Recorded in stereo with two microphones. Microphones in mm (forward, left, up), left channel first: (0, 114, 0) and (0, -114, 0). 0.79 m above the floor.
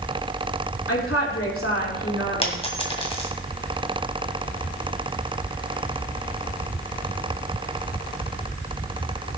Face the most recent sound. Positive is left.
turn(degrees=25)  # may be behind; listen again after turning